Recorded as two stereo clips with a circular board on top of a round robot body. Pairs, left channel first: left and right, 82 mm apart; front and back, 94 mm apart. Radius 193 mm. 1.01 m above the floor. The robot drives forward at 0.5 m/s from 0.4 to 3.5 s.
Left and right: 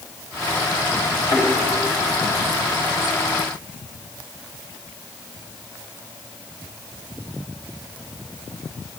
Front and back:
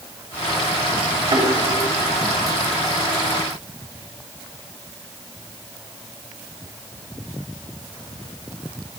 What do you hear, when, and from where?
1.3 s a thud: 135° left, 3.5 m; by 1.5 s 140° left, 3.5 m